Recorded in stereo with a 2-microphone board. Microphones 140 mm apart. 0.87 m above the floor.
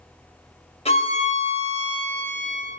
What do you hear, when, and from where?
0.8 s a violin: 50° left (ahead or behind), 1.7 m